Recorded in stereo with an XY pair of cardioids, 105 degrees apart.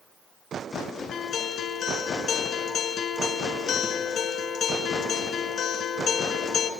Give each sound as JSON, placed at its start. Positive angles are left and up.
{"t": 1.1, "sound": "a guitar", "azimuth_deg": 65, "distance_m": 4.0}